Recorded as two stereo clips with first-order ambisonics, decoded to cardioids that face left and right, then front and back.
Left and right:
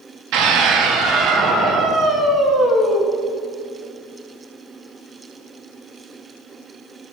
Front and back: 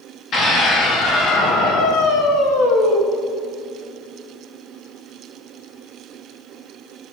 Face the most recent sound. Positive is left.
turn(degrees=-5)